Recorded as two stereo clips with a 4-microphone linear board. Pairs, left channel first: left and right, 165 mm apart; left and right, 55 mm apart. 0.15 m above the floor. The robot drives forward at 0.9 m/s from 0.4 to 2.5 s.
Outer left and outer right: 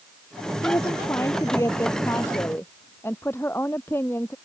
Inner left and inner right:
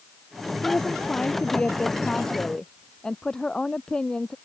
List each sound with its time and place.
0.6 s a woman speaking: 20° left (ahead or behind); by 4.3 s 15° left (ahead or behind)